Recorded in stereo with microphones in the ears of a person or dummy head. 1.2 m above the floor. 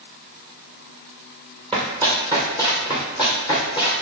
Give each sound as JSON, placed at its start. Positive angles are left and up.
{"t": 1.7, "sound": "running footsteps", "side_deg": 5, "distance_m": 1.6}